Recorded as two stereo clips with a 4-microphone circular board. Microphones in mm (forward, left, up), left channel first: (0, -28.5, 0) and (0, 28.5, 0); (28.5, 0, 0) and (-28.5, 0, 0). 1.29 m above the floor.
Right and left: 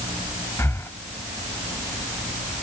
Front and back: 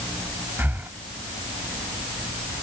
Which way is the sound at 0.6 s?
130° right.